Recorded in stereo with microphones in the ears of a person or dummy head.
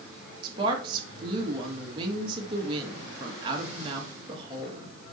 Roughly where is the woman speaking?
Right.